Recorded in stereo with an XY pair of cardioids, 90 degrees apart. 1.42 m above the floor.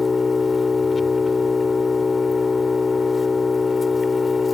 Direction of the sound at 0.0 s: 30° left.